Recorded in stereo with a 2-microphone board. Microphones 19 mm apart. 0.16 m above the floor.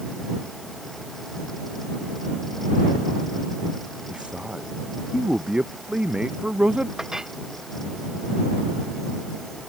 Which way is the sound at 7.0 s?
30° right (ahead or behind).